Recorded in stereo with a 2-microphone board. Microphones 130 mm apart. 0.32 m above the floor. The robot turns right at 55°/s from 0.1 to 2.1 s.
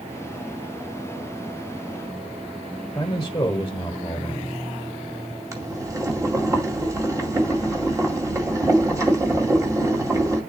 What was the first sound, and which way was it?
A man speaking, 25° left (ahead or behind).